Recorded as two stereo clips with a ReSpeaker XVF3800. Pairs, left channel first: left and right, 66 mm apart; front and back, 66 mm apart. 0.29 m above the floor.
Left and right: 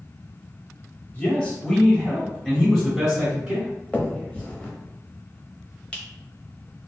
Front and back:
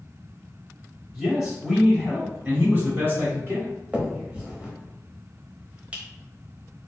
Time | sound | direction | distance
1.1 | a man speaking | 95° left | 1.7 m
3.9 | a finger snap | 140° left | 0.8 m